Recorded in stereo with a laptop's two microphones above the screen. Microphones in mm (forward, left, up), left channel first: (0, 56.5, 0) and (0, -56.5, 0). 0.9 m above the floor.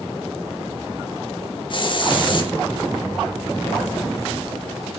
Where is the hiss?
45° left (ahead or behind), 1.5 m.